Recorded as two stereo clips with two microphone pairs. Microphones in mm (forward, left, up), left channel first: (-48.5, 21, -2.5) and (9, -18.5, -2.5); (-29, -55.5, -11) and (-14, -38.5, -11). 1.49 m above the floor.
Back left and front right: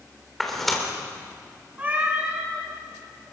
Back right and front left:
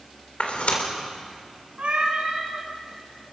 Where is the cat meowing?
30° left, 7.5 m.